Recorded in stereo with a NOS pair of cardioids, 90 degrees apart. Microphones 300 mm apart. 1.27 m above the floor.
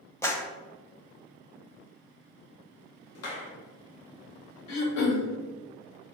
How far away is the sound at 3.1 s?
About 0.8 m.